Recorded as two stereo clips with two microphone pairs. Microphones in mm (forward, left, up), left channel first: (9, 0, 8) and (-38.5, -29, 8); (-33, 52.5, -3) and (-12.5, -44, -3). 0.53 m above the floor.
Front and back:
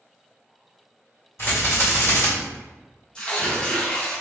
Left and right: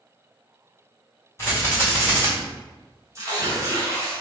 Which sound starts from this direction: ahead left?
A rattle, at 1.4 s.